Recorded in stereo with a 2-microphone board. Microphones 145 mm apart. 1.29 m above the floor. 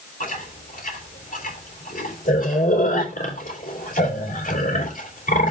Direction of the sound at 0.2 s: 70° left (ahead or behind).